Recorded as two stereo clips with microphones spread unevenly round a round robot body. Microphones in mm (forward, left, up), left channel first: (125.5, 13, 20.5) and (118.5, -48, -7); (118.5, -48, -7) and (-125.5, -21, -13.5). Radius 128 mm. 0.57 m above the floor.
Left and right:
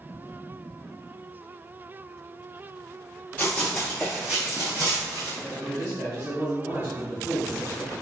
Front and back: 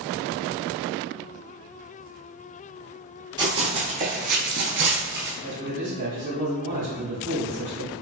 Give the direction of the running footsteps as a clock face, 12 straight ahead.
9 o'clock.